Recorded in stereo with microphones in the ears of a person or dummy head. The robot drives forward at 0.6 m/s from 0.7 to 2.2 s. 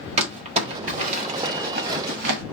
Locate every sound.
0.2 s crumpling: 40° right (ahead or behind), 1.5 m; by 2.4 s 60° right (ahead or behind), 1.0 m